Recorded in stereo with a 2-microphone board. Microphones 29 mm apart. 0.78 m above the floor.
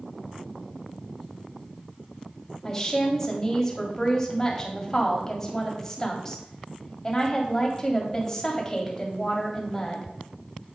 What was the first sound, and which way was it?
A woman speaking, 15° left (ahead or behind).